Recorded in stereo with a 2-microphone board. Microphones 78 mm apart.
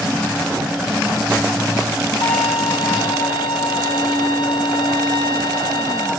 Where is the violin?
75° left (ahead or behind), 3 m.